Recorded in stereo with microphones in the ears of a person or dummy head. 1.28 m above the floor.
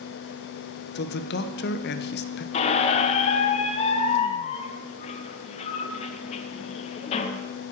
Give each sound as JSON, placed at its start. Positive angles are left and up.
{"t": 0.9, "sound": "a man speaking", "side_deg": 55, "distance_m": 0.6}
{"t": 2.5, "sound": "a squeak", "side_deg": 40, "distance_m": 0.7}